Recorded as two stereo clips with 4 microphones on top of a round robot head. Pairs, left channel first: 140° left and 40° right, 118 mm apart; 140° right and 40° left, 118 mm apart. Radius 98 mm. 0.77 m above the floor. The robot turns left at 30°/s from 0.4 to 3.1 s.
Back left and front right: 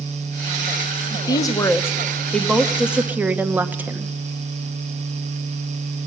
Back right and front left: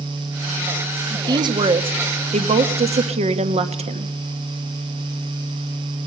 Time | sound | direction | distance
1.1 | a woman speaking | 95° left | 1.3 m